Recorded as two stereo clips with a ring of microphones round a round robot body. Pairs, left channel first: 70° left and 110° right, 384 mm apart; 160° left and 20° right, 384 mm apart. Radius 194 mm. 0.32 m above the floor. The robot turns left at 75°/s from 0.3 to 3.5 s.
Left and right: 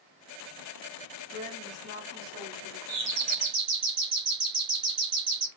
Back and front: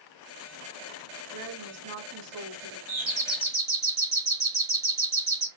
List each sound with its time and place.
1.3 s a woman speaking: straight ahead, 1.9 m; by 2.8 s 110° right, 1.9 m
2.9 s a doorbell: 80° right, 2.5 m; by 5.5 s 125° right, 2.5 m